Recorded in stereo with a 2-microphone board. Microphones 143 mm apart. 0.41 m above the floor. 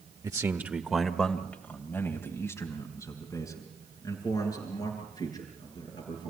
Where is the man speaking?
25° right (ahead or behind), 1.3 m; by 6.3 s 25° left (ahead or behind), 8 m.